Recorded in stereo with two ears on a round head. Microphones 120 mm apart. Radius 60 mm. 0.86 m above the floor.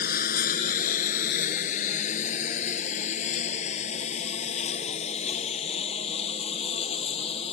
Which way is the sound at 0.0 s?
70° left (ahead or behind).